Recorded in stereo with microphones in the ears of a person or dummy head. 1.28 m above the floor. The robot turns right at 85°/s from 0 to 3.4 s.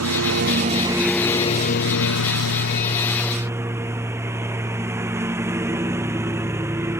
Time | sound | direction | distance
0.0 | a lawn mower | 95° right | ?